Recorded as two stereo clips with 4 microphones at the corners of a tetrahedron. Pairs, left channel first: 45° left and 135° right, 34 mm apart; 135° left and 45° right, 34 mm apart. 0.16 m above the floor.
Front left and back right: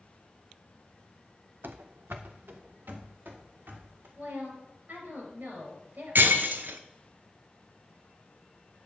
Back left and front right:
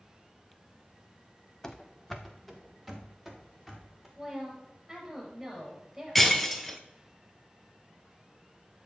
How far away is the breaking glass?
About 0.8 m.